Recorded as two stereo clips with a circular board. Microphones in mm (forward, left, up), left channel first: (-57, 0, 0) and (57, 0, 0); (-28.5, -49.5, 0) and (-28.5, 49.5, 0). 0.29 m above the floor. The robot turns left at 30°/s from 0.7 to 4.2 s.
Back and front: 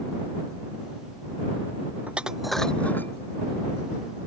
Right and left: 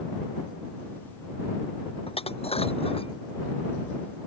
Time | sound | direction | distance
2.1 | dishes clattering | 75° right | ?